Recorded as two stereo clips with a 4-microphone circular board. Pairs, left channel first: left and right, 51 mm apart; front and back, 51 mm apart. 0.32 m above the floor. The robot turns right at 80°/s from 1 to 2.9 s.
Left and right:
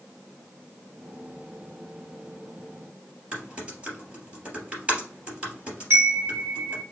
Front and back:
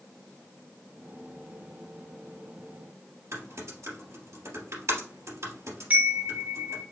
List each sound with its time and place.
3.3 s typing on a keyboard: 155° right, 2.5 m
5.9 s a chime: 120° right, 2 m